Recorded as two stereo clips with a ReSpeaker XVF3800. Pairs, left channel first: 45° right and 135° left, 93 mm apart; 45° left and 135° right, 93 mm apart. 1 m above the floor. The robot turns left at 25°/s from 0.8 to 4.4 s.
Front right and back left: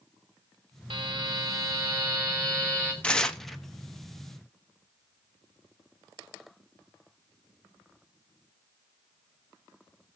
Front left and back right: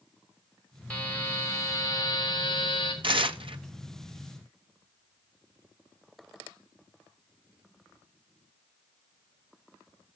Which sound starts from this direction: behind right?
Tearing paper, at 3.0 s.